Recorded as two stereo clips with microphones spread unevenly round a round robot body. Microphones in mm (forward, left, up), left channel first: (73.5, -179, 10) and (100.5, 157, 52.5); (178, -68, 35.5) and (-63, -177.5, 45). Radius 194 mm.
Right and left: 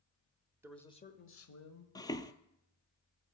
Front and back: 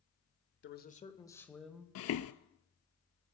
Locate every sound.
0.6 s a man speaking: 5° right, 1.2 m; by 1.9 s 70° right, 2 m
1.9 s footsteps: 10° right, 0.7 m